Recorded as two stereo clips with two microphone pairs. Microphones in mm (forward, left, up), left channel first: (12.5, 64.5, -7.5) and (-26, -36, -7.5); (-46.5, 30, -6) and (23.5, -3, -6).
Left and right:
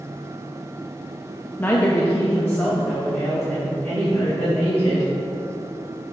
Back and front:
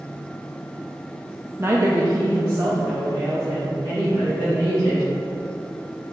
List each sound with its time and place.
1.6 s a woman speaking: 10° left, 0.6 m; by 5.1 s 5° right, 3.5 m